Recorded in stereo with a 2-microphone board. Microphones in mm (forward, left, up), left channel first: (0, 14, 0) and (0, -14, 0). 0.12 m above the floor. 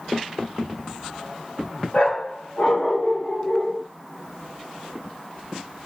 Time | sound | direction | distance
1.9 | a dog barking | 40° left (ahead or behind) | 5 m